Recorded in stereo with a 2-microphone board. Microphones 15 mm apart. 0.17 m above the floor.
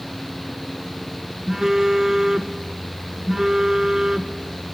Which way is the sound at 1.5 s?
30° right (ahead or behind).